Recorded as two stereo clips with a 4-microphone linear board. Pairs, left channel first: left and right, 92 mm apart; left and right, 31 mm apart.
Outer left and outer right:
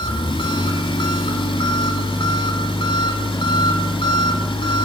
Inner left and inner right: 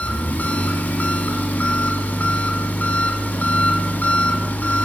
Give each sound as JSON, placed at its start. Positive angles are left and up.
{"t": 0.0, "sound": "an engine running", "side_deg": 70, "distance_m": 2.0}